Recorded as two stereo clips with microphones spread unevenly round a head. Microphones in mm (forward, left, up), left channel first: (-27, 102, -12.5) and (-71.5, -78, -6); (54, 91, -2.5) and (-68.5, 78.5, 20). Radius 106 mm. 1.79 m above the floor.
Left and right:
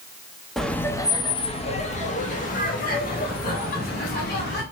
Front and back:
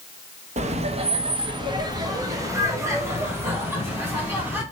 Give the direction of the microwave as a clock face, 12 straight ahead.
I don't hear a microwave.